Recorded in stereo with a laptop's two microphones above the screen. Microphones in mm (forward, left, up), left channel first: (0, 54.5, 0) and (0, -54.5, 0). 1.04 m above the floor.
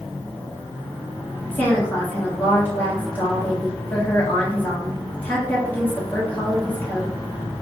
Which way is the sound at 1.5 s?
15° left (ahead or behind).